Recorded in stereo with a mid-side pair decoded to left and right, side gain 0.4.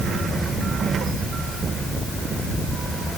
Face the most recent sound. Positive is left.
No sound to turn to.